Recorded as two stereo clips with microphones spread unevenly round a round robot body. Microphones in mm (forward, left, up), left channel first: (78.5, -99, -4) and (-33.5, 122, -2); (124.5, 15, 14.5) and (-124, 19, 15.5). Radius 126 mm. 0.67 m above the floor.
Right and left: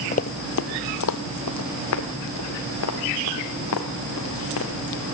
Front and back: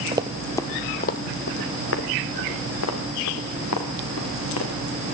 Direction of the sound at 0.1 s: 115° right.